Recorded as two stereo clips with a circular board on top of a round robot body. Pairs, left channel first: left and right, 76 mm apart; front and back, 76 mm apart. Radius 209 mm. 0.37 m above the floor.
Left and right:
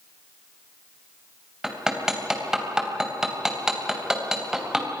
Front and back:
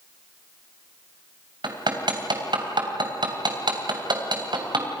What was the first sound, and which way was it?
Hammering, 170° right.